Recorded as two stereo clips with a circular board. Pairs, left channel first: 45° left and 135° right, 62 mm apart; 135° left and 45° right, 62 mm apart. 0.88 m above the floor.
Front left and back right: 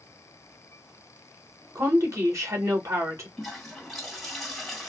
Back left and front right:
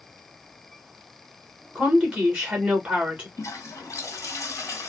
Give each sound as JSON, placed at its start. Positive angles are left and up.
{"t": 1.8, "sound": "a woman speaking", "azimuth_deg": -115, "distance_m": 2.0}
{"t": 3.4, "sound": "a toilet flushing", "azimuth_deg": 130, "distance_m": 1.5}